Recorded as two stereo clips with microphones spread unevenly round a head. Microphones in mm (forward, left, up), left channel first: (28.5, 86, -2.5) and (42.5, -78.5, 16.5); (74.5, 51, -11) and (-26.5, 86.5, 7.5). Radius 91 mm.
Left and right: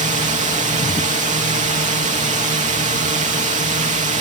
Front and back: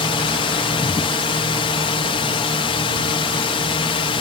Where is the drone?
45° right.